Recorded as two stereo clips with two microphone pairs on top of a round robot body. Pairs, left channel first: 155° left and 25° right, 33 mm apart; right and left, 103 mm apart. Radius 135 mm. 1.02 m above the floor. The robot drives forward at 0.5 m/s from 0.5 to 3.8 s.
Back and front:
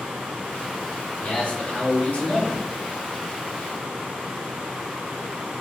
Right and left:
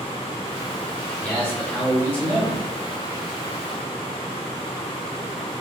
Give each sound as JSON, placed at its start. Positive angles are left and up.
{"t": 1.2, "sound": "a man speaking", "azimuth_deg": -155, "distance_m": 3.5}